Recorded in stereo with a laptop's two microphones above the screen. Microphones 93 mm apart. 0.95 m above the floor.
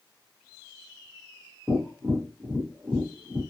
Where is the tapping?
20° right (ahead or behind), 1.0 m.